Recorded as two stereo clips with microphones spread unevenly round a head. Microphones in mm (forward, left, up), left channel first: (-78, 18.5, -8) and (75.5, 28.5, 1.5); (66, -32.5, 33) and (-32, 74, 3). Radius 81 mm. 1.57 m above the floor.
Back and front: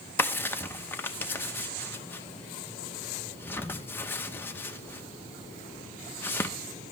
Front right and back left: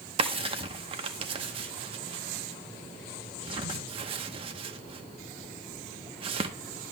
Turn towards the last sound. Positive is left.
turn(degrees=120)